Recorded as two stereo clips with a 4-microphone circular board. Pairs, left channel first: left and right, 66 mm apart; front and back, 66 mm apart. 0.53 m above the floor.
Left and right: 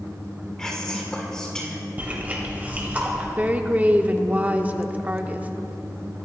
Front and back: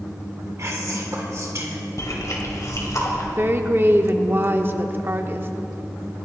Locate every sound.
0.6 s whispering: 165° left, 1.9 m
2.0 s chewing: 30° right, 2.5 m
3.4 s a woman speaking: 145° right, 0.8 m